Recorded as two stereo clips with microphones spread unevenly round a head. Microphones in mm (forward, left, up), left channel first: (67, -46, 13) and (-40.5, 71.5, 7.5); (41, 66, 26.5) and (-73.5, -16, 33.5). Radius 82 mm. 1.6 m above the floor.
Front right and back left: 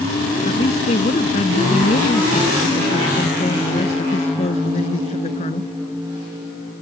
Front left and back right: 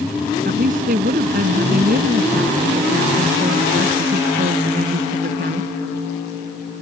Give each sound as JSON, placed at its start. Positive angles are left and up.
{"t": 0.5, "sound": "a woman speaking", "azimuth_deg": -100}